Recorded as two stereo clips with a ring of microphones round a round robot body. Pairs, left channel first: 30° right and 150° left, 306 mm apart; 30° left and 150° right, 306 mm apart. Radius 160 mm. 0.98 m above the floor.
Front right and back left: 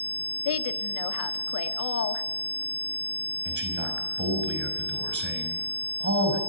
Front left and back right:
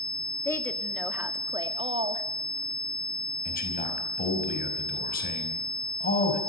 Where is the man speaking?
95° left, 5.5 m.